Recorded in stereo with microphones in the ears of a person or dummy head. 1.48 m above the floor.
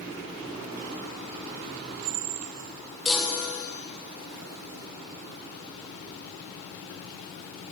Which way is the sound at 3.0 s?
Centre (ahead or behind).